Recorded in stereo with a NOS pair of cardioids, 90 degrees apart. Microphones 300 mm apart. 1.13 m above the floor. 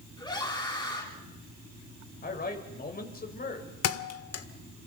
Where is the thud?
60° left, 1.7 m.